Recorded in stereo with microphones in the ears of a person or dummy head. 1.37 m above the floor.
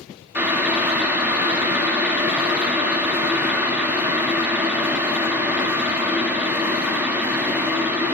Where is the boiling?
5° right (ahead or behind), 0.5 m.